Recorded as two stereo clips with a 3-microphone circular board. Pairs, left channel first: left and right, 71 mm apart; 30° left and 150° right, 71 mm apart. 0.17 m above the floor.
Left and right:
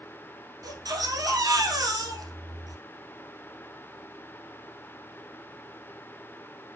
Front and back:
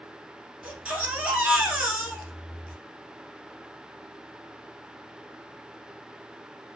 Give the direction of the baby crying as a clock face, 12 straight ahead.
3 o'clock.